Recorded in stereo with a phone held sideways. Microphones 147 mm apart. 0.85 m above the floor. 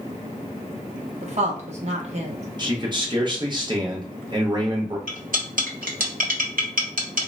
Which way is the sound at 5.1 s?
70° right (ahead or behind).